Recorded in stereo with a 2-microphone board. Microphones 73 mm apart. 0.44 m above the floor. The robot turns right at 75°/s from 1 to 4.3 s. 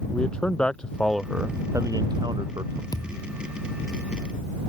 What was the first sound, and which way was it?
A man speaking, 170° left.